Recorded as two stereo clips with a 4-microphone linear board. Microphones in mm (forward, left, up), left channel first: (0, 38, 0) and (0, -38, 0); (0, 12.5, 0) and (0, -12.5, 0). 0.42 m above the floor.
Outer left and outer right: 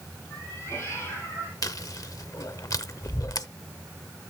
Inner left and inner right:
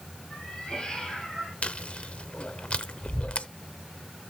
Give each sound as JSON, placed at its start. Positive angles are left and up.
{"t": 0.3, "sound": "a cat meowing", "side_deg": 35, "distance_m": 6.0}
{"t": 1.6, "sound": "chewing", "side_deg": 55, "distance_m": 0.7}